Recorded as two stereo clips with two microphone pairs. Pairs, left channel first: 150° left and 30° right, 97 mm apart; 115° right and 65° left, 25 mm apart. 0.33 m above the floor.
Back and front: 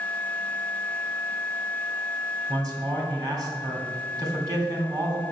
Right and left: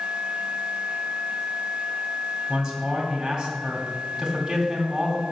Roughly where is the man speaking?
Ahead.